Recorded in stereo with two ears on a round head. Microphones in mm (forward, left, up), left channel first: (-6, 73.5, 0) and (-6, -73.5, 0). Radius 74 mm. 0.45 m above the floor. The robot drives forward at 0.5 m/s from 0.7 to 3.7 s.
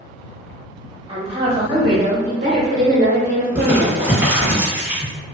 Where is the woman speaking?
35° right (ahead or behind), 1.6 m; by 4.0 s 50° right (ahead or behind), 1.1 m.